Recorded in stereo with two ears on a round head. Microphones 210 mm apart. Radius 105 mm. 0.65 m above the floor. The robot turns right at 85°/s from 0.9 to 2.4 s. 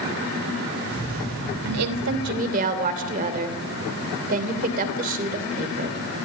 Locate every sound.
1.6 s a woman speaking: 105° right, 2.5 m; by 6.0 s 40° right, 2.5 m